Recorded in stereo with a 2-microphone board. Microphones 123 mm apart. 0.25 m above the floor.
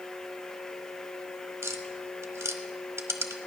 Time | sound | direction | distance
1.6 | tapping | 25° right (ahead or behind) | 1.0 m